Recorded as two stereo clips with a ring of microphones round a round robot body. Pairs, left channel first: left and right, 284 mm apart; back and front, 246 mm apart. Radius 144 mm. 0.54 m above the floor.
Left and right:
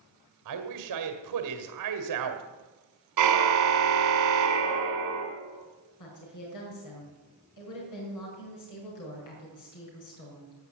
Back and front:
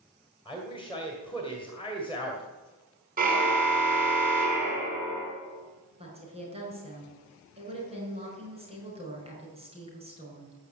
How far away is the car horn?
About 3.5 m.